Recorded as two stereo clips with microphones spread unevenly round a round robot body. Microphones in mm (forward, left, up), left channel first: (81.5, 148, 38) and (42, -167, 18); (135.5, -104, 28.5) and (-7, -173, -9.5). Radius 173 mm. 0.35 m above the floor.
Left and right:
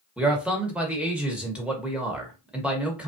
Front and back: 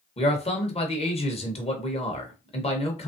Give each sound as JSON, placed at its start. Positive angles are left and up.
{"t": 0.2, "sound": "a man speaking", "azimuth_deg": -20, "distance_m": 1.0}